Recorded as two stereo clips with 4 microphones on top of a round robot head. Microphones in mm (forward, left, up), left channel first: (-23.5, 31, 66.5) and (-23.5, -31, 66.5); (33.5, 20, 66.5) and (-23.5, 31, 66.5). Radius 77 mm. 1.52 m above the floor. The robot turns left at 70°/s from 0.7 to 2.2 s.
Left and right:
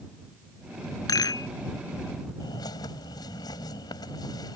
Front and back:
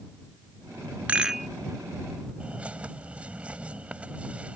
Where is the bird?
100° left.